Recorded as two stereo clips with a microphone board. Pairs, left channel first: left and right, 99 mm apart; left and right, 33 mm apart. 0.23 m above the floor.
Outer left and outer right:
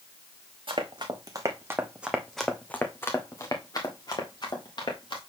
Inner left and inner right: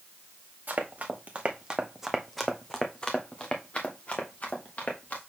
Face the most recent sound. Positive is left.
turn(degrees=55)  # may be behind; listen again after turning